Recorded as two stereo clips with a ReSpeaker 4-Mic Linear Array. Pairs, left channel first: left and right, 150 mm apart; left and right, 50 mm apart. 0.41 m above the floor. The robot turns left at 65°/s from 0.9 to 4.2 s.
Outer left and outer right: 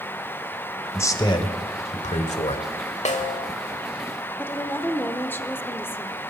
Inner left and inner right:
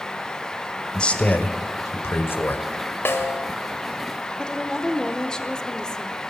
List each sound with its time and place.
0.9 s a man speaking: 160° left, 1.4 m; by 2.6 s 50° left, 1.4 m
3.0 s a snare drum: 50° left (ahead or behind), 1.4 m; by 3.5 s 55° left (ahead or behind), 1.4 m
4.4 s a woman speaking: 15° left (ahead or behind), 0.8 m